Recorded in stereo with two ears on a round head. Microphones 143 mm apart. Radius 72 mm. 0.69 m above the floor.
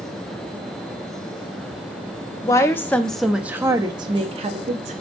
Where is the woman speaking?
20° left (ahead or behind), 0.9 m; by 4.9 s 45° right (ahead or behind), 1.0 m.